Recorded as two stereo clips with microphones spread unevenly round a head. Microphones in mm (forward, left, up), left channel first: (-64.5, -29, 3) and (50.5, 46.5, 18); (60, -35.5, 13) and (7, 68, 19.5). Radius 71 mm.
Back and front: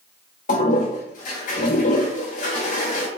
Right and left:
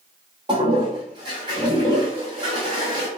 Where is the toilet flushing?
Straight behind, 0.7 m.